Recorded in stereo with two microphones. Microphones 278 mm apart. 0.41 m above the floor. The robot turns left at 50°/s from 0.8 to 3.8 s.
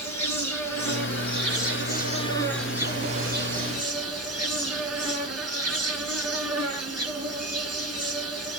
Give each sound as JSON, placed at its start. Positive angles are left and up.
{"t": 0.0, "sound": "an insect", "azimuth_deg": 90, "distance_m": 1.0}